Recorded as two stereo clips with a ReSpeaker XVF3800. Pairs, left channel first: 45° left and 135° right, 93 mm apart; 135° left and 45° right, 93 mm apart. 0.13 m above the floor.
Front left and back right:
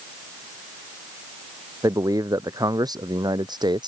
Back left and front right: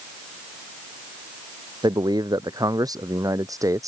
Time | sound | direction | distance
1.8 | a man speaking | 85° right | ?